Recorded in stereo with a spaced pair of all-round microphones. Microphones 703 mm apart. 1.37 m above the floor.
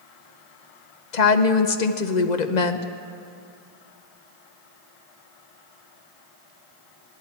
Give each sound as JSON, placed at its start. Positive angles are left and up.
{"t": 1.1, "sound": "a woman speaking", "side_deg": 75, "distance_m": 0.9}